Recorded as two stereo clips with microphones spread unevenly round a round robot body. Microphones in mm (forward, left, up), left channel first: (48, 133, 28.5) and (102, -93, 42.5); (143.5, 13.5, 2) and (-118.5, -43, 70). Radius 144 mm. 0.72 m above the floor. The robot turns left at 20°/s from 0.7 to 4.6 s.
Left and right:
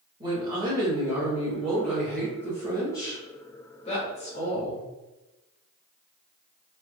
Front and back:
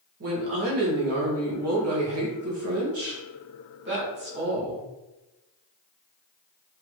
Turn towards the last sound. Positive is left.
turn(degrees=135)